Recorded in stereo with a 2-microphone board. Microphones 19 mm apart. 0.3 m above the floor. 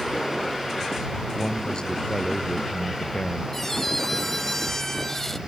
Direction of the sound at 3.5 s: 10° left (ahead or behind).